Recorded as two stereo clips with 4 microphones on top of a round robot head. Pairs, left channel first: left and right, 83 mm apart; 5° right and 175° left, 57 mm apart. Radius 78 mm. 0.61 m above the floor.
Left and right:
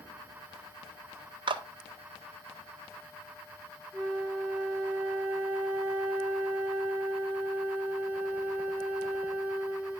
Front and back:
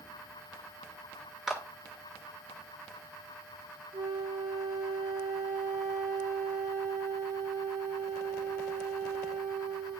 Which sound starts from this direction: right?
A clap, at 1.5 s.